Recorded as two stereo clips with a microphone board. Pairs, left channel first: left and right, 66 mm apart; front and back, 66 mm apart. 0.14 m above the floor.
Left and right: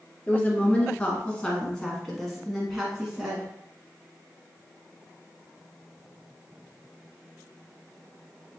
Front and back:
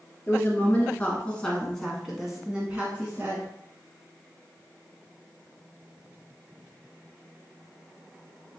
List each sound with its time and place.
0.3 s a woman speaking: 35° left, 1.5 m; by 3.5 s 160° right, 1.3 m